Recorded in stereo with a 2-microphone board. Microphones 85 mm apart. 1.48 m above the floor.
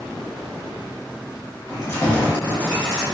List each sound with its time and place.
1.7 s keys jangling: 40° left (ahead or behind), 1.4 m; by 3.0 s centre (ahead or behind), 1.2 m